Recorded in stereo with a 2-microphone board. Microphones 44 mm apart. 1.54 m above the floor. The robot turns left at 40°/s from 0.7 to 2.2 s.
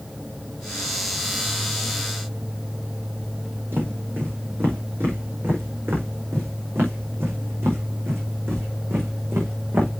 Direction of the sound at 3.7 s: 55° right (ahead or behind).